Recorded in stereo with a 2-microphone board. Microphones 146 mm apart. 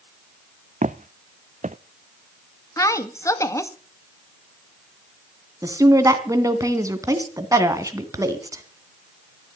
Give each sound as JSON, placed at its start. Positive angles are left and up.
{"t": 0.8, "sound": "footsteps", "side_deg": -60, "distance_m": 0.7}
{"t": 2.8, "sound": "a woman speaking", "side_deg": 20, "distance_m": 1.2}
{"t": 5.6, "sound": "a woman speaking", "side_deg": -25, "distance_m": 2.0}